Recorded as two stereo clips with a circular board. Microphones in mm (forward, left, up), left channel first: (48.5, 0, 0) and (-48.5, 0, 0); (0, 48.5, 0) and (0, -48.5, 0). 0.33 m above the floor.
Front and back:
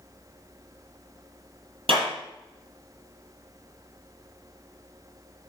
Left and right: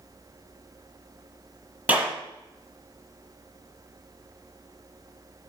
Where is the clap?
165° right, 5.5 m.